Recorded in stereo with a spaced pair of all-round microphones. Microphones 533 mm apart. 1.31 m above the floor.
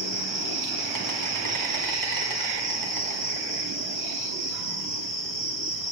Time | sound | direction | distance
0.0 | an insect | 35° right (ahead or behind) | 1.1 m